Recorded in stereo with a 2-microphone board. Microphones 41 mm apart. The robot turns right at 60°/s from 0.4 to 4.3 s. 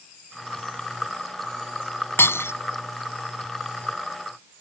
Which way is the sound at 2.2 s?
65° left (ahead or behind).